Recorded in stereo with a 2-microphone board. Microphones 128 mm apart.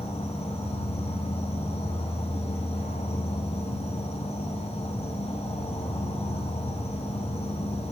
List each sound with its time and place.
0.0 s an insect: 55° left (ahead or behind), 2 m